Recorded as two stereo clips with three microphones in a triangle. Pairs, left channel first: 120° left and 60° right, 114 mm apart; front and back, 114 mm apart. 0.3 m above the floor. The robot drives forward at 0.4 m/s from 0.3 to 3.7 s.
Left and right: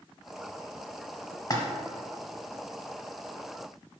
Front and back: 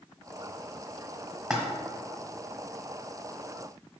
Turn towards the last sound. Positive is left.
turn(degrees=150)